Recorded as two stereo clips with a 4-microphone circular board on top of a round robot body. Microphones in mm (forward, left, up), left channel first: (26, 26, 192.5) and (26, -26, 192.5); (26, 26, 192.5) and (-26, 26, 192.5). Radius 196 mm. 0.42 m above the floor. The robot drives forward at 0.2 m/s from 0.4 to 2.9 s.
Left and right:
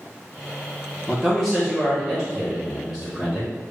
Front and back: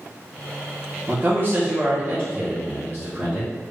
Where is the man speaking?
Straight behind, 1.0 m.